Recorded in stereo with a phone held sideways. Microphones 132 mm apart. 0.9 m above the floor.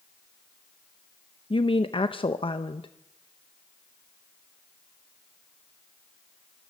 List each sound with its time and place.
1.5 s a woman speaking: 40° left (ahead or behind), 0.7 m